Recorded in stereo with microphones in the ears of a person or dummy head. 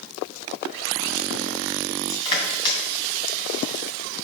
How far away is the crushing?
About 2.5 m.